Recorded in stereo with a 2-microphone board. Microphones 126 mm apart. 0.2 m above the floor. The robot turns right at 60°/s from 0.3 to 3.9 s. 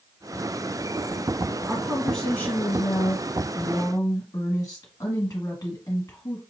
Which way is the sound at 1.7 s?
15° right.